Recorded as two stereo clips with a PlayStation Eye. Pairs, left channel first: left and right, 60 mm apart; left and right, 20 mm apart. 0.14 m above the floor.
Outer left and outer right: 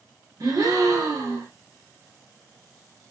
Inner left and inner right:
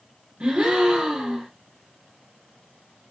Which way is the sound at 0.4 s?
85° right.